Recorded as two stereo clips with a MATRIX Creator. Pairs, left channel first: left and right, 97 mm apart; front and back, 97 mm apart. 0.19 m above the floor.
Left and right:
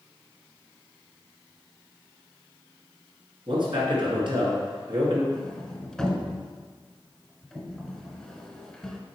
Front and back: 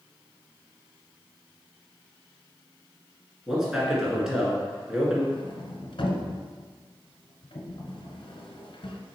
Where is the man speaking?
95° right, 2 m.